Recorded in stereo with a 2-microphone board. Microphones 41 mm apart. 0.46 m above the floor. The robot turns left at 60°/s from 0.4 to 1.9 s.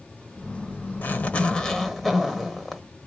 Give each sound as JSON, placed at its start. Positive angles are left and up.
{"t": 1.0, "sound": "a zipper", "azimuth_deg": 60, "distance_m": 1.1}